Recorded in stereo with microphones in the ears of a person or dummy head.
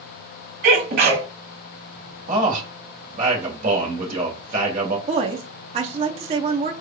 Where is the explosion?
No explosion in this recording.